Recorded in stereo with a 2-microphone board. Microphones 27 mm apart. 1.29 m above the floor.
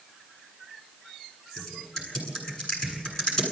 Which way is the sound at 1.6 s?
15° left (ahead or behind).